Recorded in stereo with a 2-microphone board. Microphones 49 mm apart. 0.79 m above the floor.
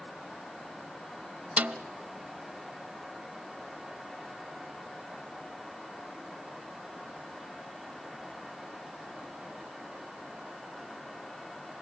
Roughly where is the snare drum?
Right.